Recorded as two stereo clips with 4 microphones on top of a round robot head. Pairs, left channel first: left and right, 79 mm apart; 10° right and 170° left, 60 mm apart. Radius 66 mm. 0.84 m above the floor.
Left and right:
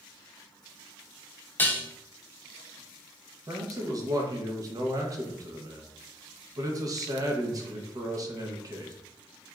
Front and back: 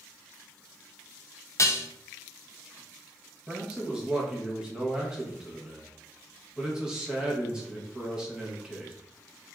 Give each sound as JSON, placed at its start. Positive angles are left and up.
{"t": 1.6, "sound": "dishes clattering", "azimuth_deg": 25, "distance_m": 0.6}
{"t": 3.5, "sound": "a man speaking", "azimuth_deg": -115, "distance_m": 0.9}